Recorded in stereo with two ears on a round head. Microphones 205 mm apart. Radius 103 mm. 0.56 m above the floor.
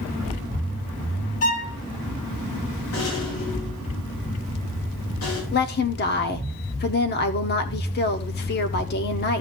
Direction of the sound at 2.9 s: 80° left.